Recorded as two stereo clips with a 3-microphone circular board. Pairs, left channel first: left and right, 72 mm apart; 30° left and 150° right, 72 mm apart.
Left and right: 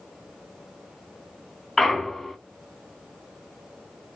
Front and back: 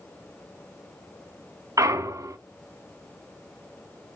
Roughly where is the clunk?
Behind.